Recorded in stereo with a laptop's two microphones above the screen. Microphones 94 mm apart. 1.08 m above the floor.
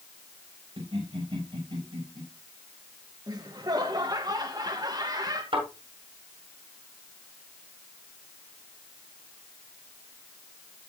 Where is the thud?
70° right (ahead or behind), 7.5 m.